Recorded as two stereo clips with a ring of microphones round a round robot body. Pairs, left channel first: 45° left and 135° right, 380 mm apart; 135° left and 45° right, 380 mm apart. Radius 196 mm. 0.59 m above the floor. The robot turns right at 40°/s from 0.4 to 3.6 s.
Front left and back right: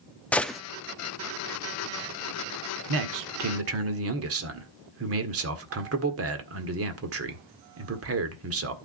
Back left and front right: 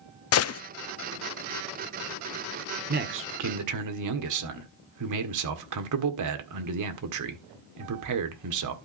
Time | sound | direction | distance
0.3 | a gunshot | 130° left | 0.5 m
2.9 | a man speaking | 110° right | 1.7 m